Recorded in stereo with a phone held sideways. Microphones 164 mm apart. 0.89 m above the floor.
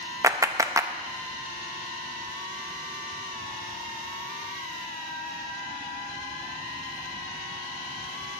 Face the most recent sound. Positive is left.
turn(degrees=-20)  # may be behind; listen again after turning